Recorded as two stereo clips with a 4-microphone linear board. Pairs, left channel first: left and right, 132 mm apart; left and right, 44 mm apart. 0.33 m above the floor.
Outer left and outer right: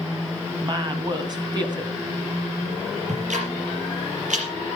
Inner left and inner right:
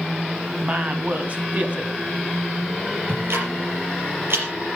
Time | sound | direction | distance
0.6 | a woman speaking | 35° right (ahead or behind) | 2 m
3.1 | ticking | 70° right (ahead or behind) | 5 m